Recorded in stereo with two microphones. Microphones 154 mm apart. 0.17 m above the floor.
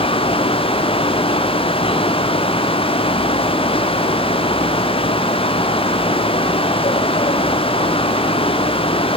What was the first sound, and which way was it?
Only background noise.